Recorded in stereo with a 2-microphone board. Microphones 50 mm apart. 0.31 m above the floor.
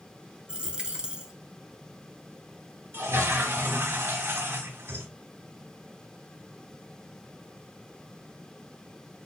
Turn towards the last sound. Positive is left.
turn(degrees=-55)  # may be behind; listen again after turning